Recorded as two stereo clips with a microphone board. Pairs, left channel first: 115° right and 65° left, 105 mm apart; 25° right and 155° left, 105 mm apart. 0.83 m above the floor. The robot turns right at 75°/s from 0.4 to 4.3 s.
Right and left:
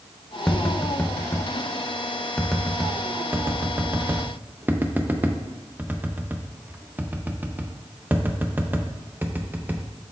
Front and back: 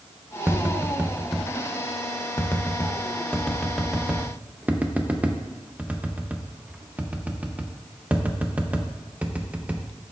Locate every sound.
0.5 s tapping: 175° left, 0.6 m; by 9.9 s 100° left, 0.6 m